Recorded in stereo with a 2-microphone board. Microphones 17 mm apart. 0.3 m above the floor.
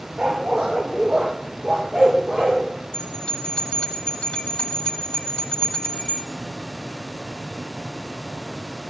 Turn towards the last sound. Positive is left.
turn(degrees=65)  # may be behind; listen again after turning